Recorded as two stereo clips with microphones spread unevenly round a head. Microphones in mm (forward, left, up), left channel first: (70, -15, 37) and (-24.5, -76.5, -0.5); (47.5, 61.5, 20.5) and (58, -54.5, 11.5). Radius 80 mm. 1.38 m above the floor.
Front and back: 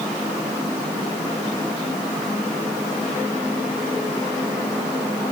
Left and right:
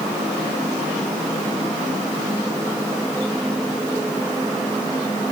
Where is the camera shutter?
No camera shutter in this recording.